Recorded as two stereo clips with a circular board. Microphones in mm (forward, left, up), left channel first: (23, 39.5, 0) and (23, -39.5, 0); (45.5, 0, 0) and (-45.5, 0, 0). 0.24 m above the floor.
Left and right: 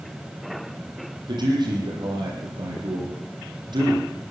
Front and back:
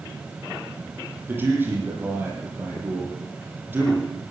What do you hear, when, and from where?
1.3 s a man speaking: 110° right, 9.5 m